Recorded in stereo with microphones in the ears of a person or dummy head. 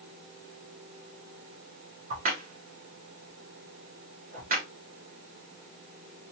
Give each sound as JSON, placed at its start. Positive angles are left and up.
{"t": 2.1, "sound": "a crack", "side_deg": -50, "distance_m": 1.0}